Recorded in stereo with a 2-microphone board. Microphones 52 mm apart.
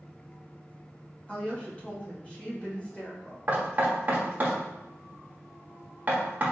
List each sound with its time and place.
1.3 s a woman speaking: 25° left (ahead or behind), 1.2 m
3.5 s knocking: 35° right (ahead or behind), 1.0 m